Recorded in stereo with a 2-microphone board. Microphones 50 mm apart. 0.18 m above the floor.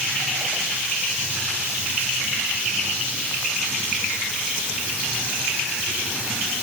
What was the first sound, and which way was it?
Only background noise.